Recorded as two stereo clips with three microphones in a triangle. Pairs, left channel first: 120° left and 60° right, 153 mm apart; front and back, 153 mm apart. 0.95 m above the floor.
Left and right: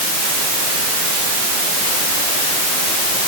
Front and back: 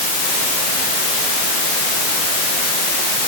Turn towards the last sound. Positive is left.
No sound to turn to.